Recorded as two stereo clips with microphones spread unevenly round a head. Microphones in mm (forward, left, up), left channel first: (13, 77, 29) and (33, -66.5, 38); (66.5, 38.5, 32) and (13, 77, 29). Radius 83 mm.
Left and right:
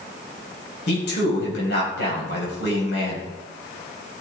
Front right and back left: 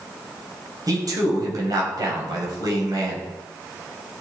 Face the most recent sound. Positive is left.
turn(degrees=120)